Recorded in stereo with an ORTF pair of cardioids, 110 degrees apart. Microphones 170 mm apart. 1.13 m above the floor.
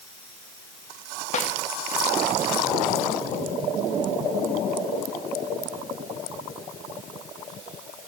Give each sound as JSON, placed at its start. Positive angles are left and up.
{"t": 1.3, "sound": "a snare drum", "azimuth_deg": 45, "distance_m": 1.5}